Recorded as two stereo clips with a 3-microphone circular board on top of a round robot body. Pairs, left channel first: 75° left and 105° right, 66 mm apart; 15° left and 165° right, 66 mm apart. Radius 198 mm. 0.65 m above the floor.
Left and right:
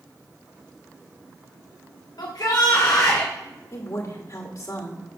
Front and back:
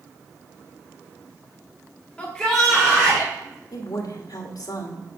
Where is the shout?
90° left, 1.3 m; by 3.3 s 125° left, 2 m.